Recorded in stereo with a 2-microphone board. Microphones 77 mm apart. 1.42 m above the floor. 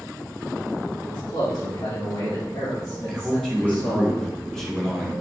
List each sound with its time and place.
1.1 s a man speaking: 80° left, 3.5 m; by 4.1 s 20° left (ahead or behind), 2 m
3.1 s a man speaking: 5° left (ahead or behind), 2 m